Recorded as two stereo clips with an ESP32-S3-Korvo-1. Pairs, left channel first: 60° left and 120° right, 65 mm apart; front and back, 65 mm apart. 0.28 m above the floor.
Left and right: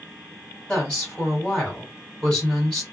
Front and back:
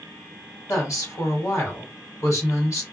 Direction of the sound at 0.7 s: 15° right.